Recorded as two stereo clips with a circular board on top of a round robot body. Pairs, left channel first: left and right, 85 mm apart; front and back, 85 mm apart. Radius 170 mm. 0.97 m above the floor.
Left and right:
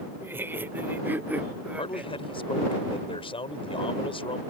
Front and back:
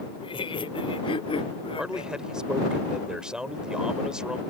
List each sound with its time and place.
0.2 s laughter: 25° right; by 2.1 s 10° right
1.8 s a man speaking: 100° left